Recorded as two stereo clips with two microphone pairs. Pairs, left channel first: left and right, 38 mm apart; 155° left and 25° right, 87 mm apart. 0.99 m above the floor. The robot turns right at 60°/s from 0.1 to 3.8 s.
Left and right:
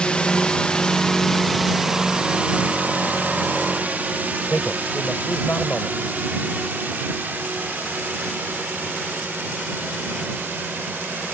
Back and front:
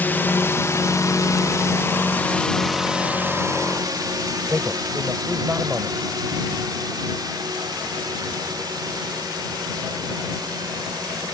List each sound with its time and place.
0.0 s a drone: 115° left; by 11.3 s 65° right
4.5 s a man speaking: 40° left